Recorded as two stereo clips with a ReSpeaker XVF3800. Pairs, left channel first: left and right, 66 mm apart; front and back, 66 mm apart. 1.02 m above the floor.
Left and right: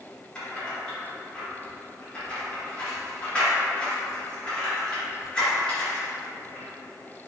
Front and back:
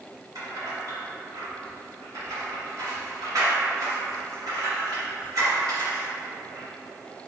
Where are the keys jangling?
165° left, 1.9 m.